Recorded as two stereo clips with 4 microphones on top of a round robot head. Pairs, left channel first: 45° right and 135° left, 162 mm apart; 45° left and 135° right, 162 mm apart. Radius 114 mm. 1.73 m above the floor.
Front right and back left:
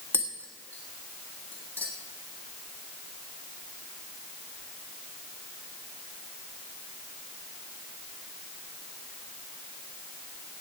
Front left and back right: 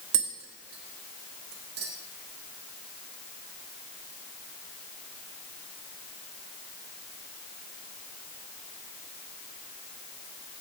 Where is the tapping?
125° right, 1.4 m.